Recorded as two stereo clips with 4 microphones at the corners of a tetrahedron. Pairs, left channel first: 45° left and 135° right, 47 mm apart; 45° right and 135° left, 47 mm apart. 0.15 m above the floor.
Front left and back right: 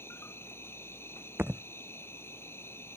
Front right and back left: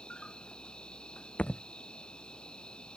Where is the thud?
100° right.